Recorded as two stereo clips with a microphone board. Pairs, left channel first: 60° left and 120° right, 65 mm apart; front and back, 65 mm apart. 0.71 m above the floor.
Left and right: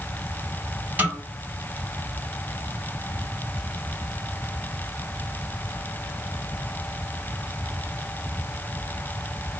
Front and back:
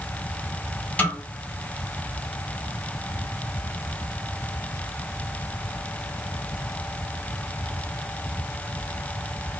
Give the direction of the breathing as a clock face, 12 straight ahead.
I don't hear breathing.